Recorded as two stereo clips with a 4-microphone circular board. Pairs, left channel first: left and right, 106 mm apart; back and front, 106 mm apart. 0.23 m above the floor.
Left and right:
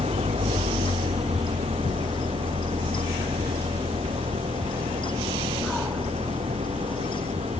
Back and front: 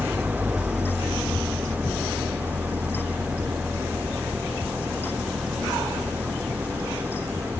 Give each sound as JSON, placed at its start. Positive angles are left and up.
{"t": 0.0, "sound": "an engine running", "azimuth_deg": -75}